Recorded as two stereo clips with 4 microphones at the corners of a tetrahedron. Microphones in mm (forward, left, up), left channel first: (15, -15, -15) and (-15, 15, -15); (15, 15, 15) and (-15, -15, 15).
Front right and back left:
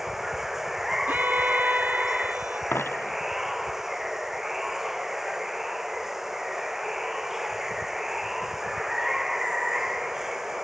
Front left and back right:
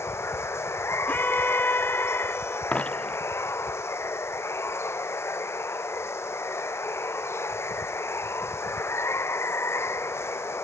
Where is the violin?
90° left.